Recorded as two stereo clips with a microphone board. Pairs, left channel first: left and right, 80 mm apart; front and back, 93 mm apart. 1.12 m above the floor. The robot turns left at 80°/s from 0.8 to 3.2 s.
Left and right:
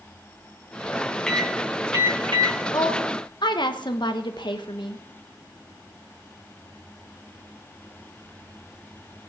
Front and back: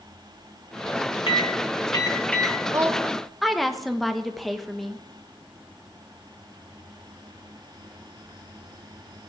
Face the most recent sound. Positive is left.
turn(degrees=90)